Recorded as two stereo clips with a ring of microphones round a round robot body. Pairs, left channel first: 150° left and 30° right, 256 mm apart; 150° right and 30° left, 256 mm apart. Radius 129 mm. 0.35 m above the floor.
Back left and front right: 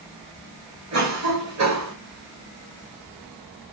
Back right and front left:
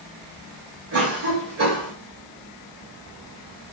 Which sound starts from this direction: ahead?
A cough, at 0.9 s.